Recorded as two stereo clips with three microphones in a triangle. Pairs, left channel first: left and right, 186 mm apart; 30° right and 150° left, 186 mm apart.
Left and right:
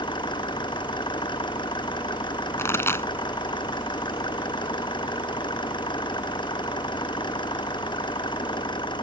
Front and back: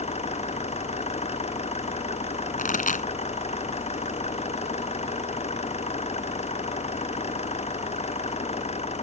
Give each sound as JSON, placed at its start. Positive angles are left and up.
{"t": 0.0, "sound": "an engine running", "azimuth_deg": 25}
{"t": 2.6, "sound": "a pop", "azimuth_deg": 15}